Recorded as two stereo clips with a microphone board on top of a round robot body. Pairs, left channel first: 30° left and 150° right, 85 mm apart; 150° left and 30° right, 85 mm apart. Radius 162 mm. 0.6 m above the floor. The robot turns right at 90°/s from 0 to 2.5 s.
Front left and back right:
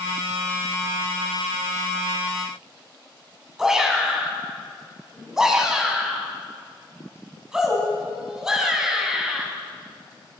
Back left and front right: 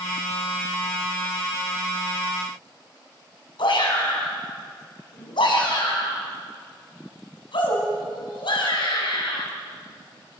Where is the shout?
130° left, 6 m.